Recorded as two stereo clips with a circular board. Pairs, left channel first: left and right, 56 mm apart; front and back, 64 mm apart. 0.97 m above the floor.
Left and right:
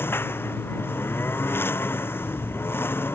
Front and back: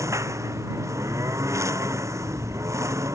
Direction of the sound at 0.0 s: 140° left.